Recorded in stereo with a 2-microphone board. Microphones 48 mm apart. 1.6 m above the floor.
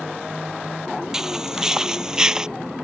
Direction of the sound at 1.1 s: 10° right (ahead or behind).